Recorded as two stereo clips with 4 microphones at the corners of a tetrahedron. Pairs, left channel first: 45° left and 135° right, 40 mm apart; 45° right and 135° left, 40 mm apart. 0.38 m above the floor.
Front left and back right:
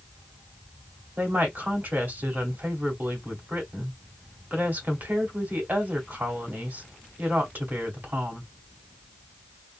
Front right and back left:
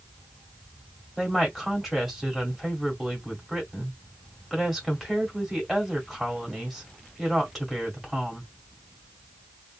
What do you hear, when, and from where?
1.2 s a woman speaking: 140° right, 1.8 m